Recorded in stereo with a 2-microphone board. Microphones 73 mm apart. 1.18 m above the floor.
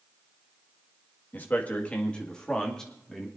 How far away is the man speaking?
About 1.8 m.